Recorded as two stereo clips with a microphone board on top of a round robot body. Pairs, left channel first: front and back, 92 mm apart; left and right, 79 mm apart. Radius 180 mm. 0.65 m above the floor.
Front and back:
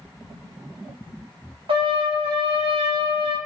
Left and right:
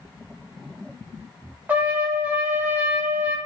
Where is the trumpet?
160° right, 0.9 m.